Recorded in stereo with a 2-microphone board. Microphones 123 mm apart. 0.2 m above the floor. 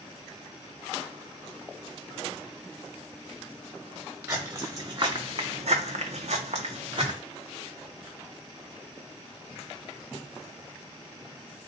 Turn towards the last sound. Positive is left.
turn(degrees=-50)  # may be behind; listen again after turning